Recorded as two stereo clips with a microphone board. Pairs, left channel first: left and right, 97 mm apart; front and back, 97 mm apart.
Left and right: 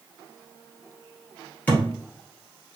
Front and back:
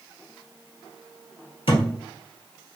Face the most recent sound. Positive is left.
turn(degrees=15)